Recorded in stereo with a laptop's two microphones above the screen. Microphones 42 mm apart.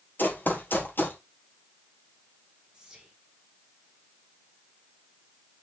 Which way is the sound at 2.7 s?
15° right (ahead or behind).